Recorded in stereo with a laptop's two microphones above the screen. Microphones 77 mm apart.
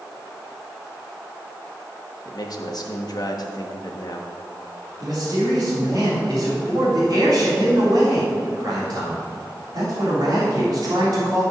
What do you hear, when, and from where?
2.2 s a man speaking: 60° left (ahead or behind), 1.3 m
5.0 s a man speaking: 60° right (ahead or behind), 3.5 m